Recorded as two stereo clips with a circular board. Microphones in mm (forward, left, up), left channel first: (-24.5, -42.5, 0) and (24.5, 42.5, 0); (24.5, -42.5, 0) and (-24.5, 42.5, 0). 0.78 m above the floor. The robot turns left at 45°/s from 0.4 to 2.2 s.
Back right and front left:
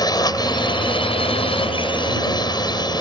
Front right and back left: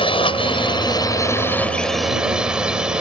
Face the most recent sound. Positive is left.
turn(degrees=-160)